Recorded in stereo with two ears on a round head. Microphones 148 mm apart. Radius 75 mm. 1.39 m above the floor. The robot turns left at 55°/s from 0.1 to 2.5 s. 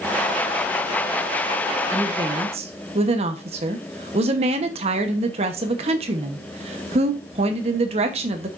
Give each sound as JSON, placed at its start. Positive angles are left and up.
{"t": 1.9, "sound": "a woman speaking", "azimuth_deg": -5, "distance_m": 1.0}